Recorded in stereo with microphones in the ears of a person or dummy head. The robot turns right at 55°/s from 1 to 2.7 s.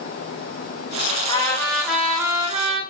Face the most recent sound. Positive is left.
turn(degrees=-120)